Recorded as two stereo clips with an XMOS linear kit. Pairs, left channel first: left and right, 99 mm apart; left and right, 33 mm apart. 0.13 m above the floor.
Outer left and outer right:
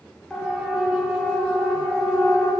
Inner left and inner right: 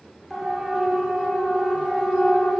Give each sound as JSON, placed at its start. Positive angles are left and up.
{"t": 0.3, "sound": "a siren", "side_deg": 5, "distance_m": 7.0}